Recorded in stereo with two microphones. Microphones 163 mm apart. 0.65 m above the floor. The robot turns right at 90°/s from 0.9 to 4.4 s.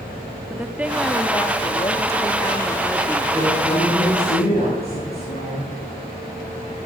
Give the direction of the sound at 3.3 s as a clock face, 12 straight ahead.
1 o'clock.